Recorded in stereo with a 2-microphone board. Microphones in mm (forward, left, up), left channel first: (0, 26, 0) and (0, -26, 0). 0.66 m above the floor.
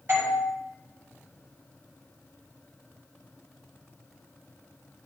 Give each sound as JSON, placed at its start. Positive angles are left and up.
{"t": 0.1, "sound": "a doorbell", "side_deg": -40, "distance_m": 5.5}